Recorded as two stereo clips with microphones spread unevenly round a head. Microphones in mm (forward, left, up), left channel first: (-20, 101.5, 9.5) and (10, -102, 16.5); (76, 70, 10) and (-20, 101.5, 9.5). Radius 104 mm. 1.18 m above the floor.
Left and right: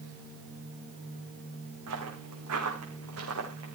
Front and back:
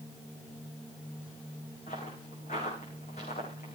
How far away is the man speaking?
No man speaking in this recording.